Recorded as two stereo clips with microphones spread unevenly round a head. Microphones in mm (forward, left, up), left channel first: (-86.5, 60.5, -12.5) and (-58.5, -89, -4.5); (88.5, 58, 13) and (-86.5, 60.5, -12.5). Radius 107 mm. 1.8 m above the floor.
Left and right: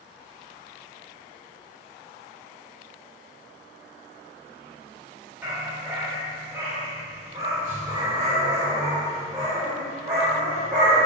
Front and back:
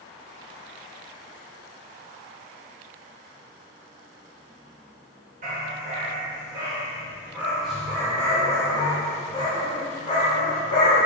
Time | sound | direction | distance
5.4 | a dog barking | 150° right | 1.8 m